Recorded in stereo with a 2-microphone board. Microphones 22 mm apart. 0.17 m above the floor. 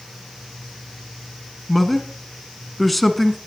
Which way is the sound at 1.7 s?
5° left (ahead or behind).